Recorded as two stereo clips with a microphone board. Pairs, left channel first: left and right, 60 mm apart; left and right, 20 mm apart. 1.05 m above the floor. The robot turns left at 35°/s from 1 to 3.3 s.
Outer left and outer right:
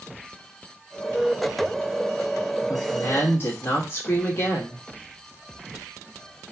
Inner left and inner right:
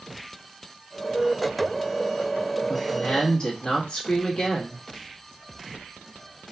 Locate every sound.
2.7 s a woman speaking: 60° left (ahead or behind), 1.6 m; by 4.8 s 40° left (ahead or behind), 1.6 m